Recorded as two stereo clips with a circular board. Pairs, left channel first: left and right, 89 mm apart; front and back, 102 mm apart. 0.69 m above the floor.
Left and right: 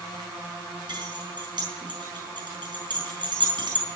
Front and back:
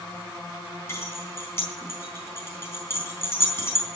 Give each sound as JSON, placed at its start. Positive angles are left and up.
{"t": 0.9, "sound": "keys jangling", "azimuth_deg": -60, "distance_m": 3.5}